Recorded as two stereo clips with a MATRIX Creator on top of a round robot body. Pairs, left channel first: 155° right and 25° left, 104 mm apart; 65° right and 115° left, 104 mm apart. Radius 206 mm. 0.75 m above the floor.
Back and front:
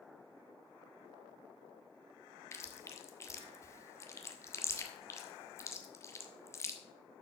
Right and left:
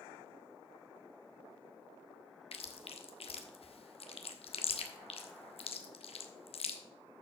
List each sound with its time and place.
2.5 s chewing: 95° right, 1.4 m